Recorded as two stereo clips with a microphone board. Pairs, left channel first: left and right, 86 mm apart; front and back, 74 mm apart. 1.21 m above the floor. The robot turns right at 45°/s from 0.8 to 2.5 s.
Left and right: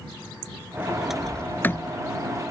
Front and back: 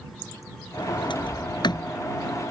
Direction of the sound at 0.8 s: 15° right.